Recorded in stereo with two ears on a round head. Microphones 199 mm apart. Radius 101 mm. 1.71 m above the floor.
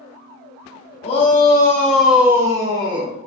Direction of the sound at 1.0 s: 30° left (ahead or behind).